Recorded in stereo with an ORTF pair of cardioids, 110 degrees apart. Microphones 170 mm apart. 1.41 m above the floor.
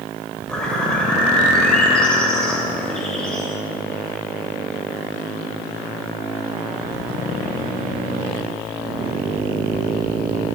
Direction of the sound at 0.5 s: 5° left.